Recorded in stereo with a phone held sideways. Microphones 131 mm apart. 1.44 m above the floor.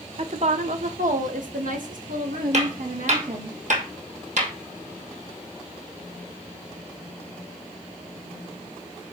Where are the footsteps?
60° right (ahead or behind), 3 m.